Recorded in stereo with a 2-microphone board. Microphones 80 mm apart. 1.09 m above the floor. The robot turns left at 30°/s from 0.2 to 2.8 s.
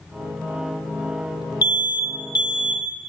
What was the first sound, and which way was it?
An alarm, 125° left.